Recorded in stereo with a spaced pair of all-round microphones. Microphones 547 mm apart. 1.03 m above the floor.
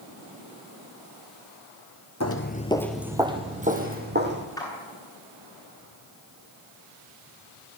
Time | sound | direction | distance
2.2 | footsteps | 30° left (ahead or behind) | 1.1 m
4.6 | a clap | 5° left (ahead or behind) | 8.5 m